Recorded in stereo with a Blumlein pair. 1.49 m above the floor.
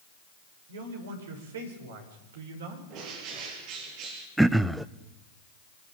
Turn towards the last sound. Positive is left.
turn(degrees=-5)